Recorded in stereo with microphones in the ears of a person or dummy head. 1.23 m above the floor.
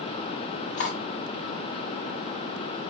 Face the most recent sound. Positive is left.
turn(degrees=45)  # may be behind; listen again after turning